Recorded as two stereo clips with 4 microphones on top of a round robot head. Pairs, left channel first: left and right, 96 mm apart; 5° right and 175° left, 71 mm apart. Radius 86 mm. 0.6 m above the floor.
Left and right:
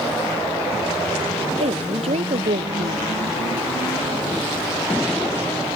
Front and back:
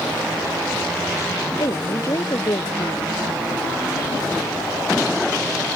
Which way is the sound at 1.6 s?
60° right.